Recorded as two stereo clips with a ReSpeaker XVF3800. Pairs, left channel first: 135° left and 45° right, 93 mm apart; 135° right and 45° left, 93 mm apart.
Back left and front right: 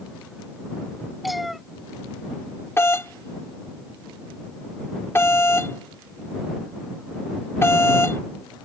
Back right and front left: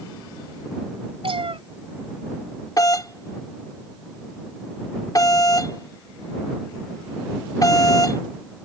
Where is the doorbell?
170° right.